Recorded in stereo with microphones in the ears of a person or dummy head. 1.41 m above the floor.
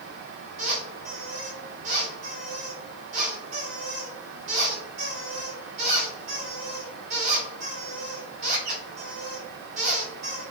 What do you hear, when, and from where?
0.6 s a squeak: 35° right (ahead or behind), 1.1 m